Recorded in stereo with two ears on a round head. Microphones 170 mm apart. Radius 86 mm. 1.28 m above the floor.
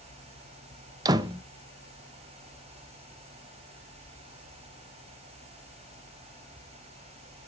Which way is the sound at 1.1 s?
20° right (ahead or behind).